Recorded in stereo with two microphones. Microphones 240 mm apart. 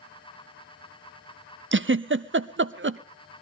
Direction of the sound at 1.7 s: 55° right (ahead or behind).